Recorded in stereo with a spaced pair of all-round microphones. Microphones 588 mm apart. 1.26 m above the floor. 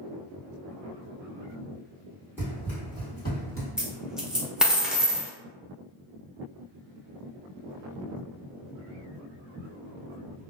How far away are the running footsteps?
About 1.6 m.